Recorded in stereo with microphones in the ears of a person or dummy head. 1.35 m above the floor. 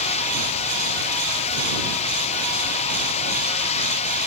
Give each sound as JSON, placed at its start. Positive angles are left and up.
{"t": 0.0, "sound": "running water", "side_deg": 35}